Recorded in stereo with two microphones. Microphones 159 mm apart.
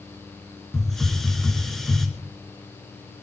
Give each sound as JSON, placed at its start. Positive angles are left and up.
{"t": 0.7, "sound": "a hiss", "side_deg": 0, "distance_m": 2.5}